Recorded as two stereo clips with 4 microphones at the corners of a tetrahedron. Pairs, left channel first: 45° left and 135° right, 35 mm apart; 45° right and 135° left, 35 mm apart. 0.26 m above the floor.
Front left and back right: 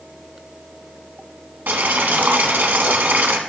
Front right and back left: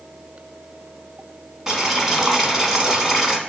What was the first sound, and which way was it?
Boiling, 150° right.